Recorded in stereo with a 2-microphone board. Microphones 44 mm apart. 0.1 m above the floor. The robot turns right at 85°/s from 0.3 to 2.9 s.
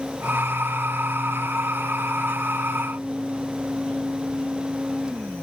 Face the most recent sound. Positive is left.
No sound to turn to.